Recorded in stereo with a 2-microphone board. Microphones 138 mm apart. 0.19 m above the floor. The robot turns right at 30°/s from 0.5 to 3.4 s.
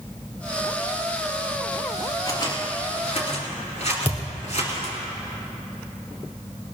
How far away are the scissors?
About 3.5 m.